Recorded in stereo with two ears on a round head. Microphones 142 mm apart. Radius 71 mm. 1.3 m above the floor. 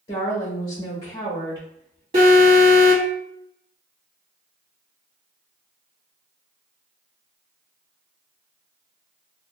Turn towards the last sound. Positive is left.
turn(degrees=-40)  # may be behind; listen again after turning